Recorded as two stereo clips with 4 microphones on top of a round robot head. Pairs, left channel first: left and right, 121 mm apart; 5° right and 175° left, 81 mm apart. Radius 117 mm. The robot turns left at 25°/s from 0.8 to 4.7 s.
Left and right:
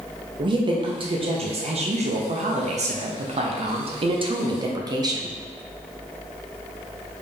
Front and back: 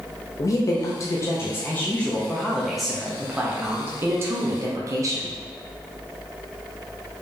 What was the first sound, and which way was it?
A woman speaking, 45° right.